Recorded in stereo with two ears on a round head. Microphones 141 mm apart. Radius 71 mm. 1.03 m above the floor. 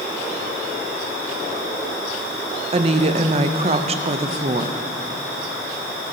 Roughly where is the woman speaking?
Right.